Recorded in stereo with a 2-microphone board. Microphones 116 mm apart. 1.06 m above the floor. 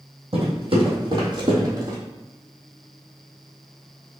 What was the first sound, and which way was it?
Footsteps, 55° right (ahead or behind).